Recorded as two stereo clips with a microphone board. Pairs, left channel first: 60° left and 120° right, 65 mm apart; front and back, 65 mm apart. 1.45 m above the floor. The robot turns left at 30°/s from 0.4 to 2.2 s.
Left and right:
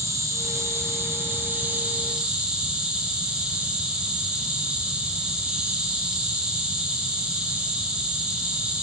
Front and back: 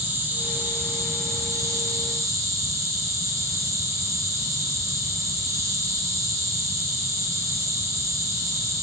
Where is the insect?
135° right, 1.3 m; by 8.8 s 170° left, 1.3 m.